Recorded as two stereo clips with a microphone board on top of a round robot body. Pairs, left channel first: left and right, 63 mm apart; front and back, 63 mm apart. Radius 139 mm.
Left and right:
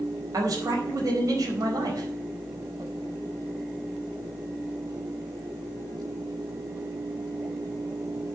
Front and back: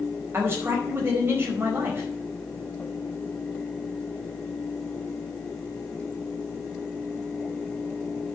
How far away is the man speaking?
About 4.5 m.